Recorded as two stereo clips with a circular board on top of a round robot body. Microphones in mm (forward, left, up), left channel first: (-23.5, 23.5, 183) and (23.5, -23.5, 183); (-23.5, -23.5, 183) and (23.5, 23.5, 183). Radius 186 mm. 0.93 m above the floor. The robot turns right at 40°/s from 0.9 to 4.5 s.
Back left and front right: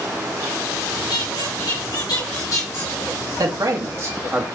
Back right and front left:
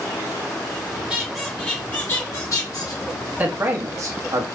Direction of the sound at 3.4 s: 20° right.